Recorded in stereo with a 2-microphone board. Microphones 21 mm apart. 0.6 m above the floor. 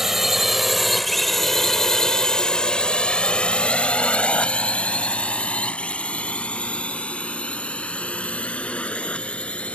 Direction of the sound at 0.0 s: 20° right (ahead or behind).